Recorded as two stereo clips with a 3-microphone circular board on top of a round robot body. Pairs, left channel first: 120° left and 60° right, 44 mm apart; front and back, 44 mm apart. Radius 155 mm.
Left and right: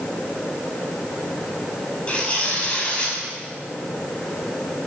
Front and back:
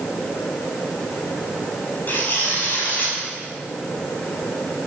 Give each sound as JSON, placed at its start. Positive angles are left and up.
{"t": 2.1, "sound": "tearing paper", "azimuth_deg": 50, "distance_m": 8.5}